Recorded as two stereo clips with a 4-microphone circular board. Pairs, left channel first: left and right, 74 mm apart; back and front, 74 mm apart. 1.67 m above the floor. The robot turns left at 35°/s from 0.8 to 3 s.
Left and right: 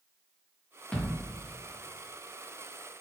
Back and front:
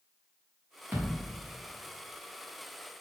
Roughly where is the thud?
Ahead left.